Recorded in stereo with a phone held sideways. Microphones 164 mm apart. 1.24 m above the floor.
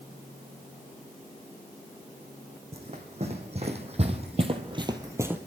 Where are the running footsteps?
40° right (ahead or behind), 3 m; by 5.4 s 10° right (ahead or behind), 1.4 m.